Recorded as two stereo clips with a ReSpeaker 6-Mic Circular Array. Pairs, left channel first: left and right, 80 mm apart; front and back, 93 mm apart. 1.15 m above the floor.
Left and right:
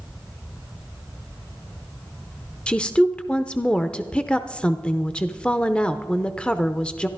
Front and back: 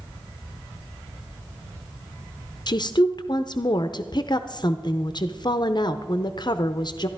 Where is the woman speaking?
15° left, 0.6 m.